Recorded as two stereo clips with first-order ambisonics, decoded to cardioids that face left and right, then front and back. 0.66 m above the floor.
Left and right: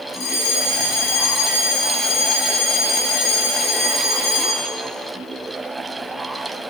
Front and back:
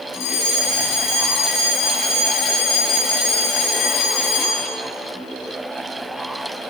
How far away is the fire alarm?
About 8.5 m.